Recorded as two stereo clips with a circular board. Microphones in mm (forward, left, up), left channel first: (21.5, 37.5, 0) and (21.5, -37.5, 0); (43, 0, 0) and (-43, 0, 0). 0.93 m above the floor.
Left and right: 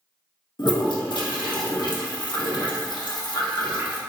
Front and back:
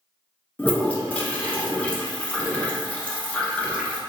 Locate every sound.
0.6 s a toilet flushing: 75° left, 0.8 m